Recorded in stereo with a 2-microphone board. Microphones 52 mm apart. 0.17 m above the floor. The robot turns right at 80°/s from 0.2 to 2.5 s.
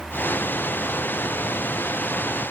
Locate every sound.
Only background noise.